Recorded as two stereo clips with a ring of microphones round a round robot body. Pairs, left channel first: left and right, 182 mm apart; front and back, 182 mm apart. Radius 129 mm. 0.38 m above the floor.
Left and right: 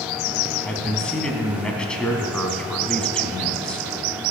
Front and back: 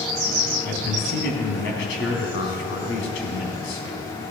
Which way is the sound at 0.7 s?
5° left.